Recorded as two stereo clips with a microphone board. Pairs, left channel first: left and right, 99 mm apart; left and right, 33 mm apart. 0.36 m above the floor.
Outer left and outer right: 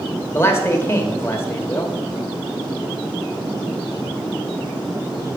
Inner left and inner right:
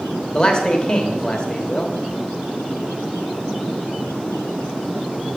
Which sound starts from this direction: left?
A man speaking, at 0.3 s.